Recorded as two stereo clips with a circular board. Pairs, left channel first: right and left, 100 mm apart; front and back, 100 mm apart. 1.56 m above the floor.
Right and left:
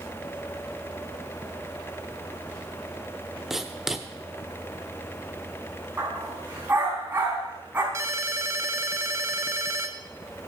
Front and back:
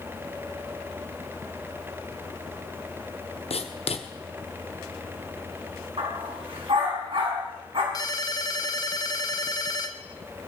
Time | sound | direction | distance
3.5 | writing | 5° left | 1.0 m
6.0 | a dog barking | 160° left | 5 m
7.9 | a ringtone | 35° left | 0.9 m